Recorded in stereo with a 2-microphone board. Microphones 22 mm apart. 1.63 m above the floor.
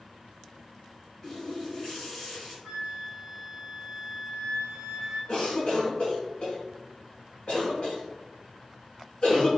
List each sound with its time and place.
1.2 s a running tap: 20° left (ahead or behind), 1.6 m
2.6 s a flute: 15° left (ahead or behind), 1.8 m
5.3 s a cough: 45° left (ahead or behind), 0.9 m